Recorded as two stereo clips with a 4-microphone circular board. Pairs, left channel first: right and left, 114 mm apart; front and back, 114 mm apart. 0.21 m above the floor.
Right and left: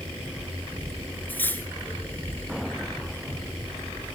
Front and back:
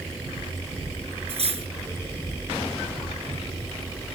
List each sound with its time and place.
1.3 s cutlery clinking: 160° right, 2.0 m